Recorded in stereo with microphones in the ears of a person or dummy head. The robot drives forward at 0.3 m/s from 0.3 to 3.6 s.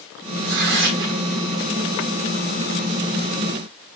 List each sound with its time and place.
0.4 s tearing paper: 45° right (ahead or behind), 0.9 m